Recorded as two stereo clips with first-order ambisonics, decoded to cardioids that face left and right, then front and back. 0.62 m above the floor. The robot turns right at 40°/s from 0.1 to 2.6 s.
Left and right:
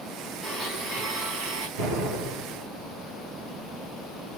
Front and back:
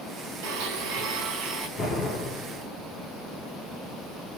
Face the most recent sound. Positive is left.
turn(degrees=-40)